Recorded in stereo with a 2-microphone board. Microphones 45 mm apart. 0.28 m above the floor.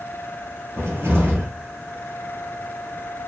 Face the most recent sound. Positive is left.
turn(degrees=-60)  # may be behind; listen again after turning